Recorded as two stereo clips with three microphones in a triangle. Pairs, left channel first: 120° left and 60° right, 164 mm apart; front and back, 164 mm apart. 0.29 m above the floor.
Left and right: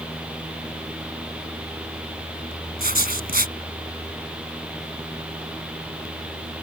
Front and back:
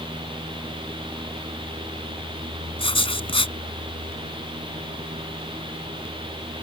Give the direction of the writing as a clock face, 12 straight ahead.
2 o'clock.